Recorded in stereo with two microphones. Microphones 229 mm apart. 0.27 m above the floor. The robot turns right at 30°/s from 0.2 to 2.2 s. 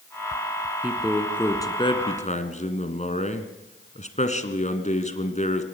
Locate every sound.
0.8 s a man speaking: 10° right, 2.5 m; by 5.6 s 35° left, 2.5 m